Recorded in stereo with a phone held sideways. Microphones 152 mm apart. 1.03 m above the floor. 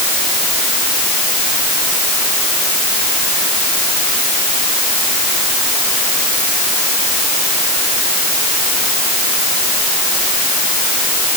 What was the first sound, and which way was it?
Only background noise.